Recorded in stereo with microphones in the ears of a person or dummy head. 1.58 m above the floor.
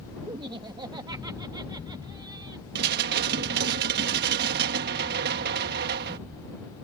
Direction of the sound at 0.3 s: 20° right (ahead or behind).